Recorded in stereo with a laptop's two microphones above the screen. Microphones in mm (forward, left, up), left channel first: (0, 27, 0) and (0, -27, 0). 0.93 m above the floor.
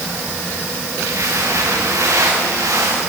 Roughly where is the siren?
I don't hear a siren.